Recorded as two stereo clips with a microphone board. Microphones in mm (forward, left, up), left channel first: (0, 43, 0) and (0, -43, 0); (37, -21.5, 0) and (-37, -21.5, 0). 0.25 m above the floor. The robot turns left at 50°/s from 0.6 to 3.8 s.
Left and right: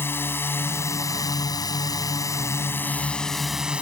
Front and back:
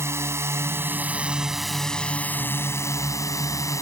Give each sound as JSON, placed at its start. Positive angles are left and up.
{"t": 0.0, "sound": "a drone", "azimuth_deg": 145}